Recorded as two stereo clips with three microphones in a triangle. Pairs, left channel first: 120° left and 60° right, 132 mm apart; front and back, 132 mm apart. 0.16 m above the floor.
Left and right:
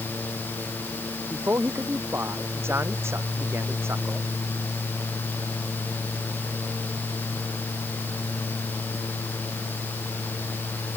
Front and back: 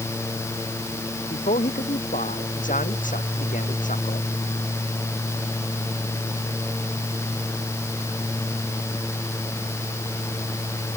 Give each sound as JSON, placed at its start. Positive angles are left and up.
{"t": 1.3, "sound": "a man speaking", "azimuth_deg": 10}